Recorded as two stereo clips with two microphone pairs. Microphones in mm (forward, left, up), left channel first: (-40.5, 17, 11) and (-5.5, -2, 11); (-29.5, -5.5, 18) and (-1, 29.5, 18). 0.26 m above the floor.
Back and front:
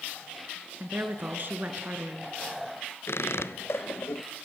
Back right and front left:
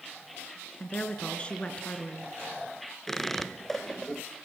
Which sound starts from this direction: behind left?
A squeak, at 3.1 s.